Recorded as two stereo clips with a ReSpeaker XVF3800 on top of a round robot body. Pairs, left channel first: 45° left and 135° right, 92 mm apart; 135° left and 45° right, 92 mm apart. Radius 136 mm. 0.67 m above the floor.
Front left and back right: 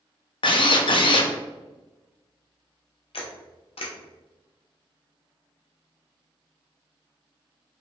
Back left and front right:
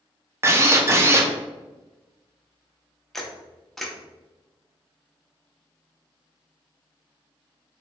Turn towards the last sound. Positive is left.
turn(degrees=50)